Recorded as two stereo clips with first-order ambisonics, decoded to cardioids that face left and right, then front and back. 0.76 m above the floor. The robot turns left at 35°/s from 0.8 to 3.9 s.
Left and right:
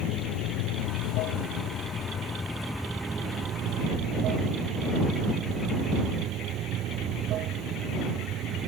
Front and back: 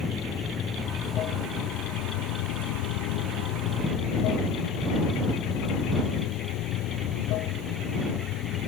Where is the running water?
70° left; by 8.7 s 40° right.